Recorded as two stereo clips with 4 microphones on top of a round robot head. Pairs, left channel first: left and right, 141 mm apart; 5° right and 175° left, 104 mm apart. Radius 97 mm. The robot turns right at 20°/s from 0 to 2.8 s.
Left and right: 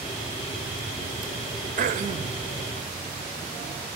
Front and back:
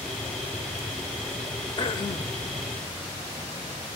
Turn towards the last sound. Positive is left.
turn(degrees=-40)